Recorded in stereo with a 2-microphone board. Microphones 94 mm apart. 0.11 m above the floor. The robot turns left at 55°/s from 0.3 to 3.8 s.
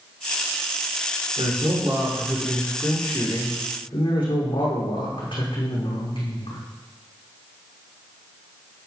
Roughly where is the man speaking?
Right.